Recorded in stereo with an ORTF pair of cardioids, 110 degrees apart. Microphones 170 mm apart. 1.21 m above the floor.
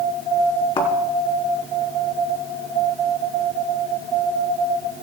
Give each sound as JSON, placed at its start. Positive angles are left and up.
{"t": 0.8, "sound": "a thud", "azimuth_deg": 30, "distance_m": 4.0}